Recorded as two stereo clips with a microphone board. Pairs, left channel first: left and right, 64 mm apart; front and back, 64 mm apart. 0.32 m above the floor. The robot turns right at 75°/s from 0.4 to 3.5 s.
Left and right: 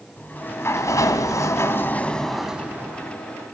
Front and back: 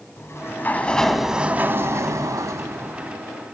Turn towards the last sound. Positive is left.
turn(degrees=-95)